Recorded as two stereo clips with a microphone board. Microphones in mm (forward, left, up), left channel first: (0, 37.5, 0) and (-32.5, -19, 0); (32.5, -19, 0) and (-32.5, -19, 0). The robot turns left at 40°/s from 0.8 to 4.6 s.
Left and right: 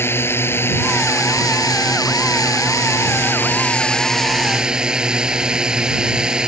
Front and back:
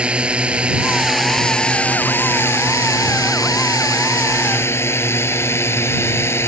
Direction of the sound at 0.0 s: 110° left.